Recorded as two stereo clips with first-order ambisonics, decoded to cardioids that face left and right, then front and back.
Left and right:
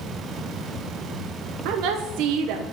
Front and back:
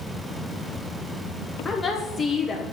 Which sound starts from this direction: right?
A woman speaking, at 1.6 s.